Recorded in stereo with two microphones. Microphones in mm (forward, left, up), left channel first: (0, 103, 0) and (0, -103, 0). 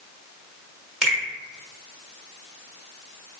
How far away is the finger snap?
About 1.3 m.